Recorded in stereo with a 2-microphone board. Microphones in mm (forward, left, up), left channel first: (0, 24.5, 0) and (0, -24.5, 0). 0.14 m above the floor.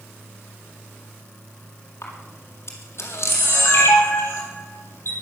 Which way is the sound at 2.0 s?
60° left (ahead or behind).